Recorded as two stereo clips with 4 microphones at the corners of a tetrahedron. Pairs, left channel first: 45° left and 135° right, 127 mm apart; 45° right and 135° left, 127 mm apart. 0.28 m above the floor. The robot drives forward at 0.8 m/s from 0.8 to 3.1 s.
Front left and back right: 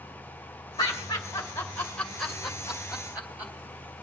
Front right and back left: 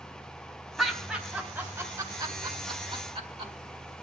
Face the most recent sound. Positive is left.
turn(degrees=150)